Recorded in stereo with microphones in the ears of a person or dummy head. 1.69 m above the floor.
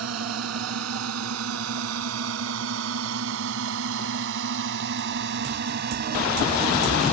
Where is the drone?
80° right; by 7.1 s 40° right (ahead or behind).